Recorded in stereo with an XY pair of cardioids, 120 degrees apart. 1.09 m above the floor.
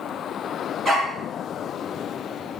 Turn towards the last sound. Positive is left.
turn(degrees=-30)